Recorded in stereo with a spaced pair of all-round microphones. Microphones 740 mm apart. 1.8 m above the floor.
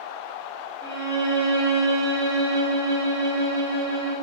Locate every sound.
0.8 s a violin: 35° right (ahead or behind), 1.0 m